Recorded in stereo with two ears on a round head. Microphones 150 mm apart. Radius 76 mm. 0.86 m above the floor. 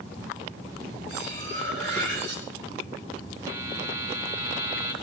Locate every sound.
1.1 s cutlery clinking: 75° right (ahead or behind), 5.5 m
3.5 s a buzzer: 20° right (ahead or behind), 1.9 m